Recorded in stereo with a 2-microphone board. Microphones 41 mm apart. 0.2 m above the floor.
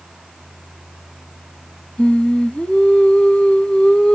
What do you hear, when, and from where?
2.0 s singing: 25° left (ahead or behind), 0.7 m